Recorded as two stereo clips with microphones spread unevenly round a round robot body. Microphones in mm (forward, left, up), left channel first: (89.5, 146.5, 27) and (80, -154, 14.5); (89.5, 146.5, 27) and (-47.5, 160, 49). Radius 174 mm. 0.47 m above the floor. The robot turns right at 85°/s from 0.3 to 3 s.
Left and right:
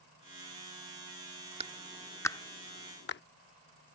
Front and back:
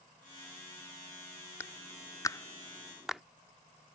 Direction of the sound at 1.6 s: 45° right.